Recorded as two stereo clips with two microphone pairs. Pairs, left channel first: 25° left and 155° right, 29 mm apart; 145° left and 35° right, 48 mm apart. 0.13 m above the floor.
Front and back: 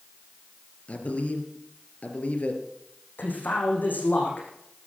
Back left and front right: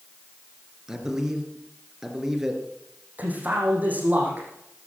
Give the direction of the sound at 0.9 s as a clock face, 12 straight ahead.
11 o'clock.